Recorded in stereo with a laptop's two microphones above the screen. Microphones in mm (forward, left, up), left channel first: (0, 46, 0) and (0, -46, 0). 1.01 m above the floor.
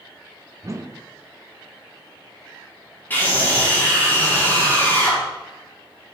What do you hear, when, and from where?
0.6 s a whoosh: 35° right (ahead or behind), 0.6 m
3.1 s a scream: 20° left (ahead or behind), 3 m